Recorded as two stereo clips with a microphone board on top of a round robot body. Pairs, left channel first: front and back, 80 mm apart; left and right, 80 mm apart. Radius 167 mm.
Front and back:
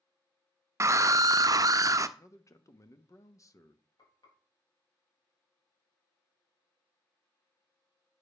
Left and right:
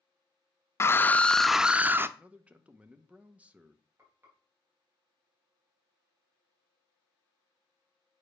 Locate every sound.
0.8 s a scream: 135° left, 0.8 m; by 2.1 s 145° right, 0.8 m
2.2 s a man speaking: 25° right, 1.2 m
4.0 s frying: 30° right, 5 m